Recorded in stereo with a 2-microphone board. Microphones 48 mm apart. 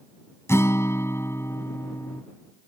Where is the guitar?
70° left (ahead or behind).